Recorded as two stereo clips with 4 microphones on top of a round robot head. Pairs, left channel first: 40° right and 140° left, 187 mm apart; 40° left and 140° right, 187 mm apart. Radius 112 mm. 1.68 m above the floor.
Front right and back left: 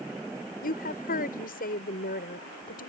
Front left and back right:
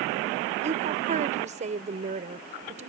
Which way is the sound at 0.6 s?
85° right.